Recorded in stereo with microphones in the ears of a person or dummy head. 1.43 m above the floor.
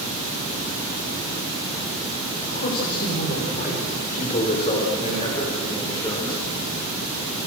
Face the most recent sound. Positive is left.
turn(degrees=20)  # may be behind; listen again after turning